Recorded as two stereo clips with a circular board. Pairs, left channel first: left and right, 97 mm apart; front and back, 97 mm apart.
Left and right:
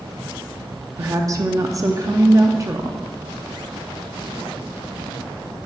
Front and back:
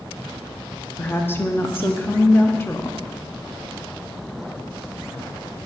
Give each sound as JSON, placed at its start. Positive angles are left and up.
{"t": 1.0, "sound": "a woman speaking", "azimuth_deg": -55, "distance_m": 0.6}